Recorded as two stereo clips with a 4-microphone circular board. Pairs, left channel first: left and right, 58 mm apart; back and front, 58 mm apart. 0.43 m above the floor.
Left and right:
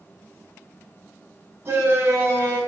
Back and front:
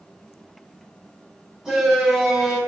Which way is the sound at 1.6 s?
75° right.